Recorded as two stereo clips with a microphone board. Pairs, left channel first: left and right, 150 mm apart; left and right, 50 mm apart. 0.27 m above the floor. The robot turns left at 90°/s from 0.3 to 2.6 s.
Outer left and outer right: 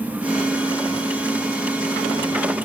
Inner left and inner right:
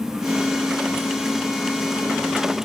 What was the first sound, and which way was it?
Only background noise.